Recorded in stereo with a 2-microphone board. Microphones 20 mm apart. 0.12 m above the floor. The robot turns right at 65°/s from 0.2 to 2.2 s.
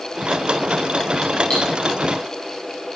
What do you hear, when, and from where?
1.5 s cutlery clinking: 40° left (ahead or behind), 7.5 m; by 1.6 s 50° left (ahead or behind), 7.5 m